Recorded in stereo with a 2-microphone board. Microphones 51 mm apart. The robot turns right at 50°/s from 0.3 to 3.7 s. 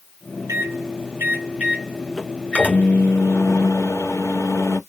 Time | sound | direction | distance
0.5 | a microwave | 80° right | 3 m